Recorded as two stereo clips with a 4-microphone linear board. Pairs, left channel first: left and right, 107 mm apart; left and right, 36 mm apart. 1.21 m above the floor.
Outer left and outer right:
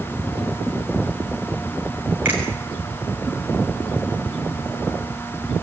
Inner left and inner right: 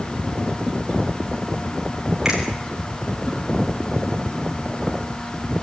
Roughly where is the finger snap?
Centre.